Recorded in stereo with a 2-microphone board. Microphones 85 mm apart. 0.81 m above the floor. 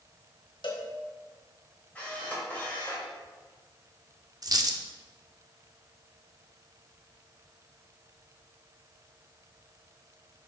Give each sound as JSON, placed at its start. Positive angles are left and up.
{"t": 0.6, "sound": "a cowbell", "side_deg": 70, "distance_m": 1.1}
{"t": 1.9, "sound": "a camera shutter", "side_deg": 20, "distance_m": 2.5}
{"t": 4.4, "sound": "a dropped coin", "side_deg": -45, "distance_m": 0.6}